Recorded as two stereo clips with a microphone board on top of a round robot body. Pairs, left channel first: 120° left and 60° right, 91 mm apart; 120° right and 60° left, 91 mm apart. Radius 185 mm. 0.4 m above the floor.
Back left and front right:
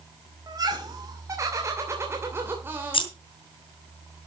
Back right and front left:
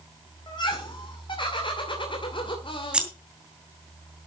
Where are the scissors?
140° left, 2.5 m.